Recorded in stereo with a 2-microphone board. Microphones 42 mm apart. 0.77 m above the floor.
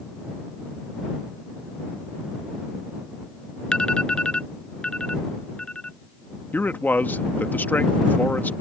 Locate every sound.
3.7 s an alarm: 20° left (ahead or behind)
6.5 s a man speaking: 50° left (ahead or behind)